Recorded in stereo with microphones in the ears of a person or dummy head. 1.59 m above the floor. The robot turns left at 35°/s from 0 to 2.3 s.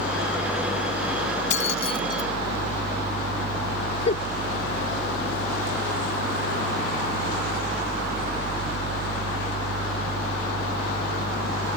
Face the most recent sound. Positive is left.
turn(degrees=40)  # may be behind; listen again after turning